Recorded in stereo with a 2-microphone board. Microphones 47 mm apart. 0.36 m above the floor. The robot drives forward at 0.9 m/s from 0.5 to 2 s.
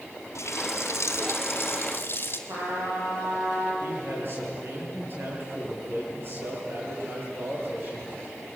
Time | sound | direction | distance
0.3 | a running tap | 75° left (ahead or behind) | 2 m
2.5 | a trumpet | 85° right | 8 m
3.8 | a man speaking | 45° right (ahead or behind) | 8.5 m